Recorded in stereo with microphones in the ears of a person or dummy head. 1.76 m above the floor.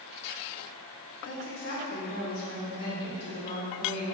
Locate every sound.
1.2 s a woman speaking: 55° left (ahead or behind), 1.1 m; by 4.0 s 85° left, 3.5 m